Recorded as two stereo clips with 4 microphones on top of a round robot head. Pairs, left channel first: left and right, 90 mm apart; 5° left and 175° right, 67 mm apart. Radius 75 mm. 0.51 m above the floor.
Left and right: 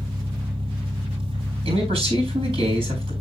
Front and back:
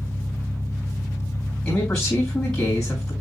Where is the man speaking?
75° right, 5.5 m.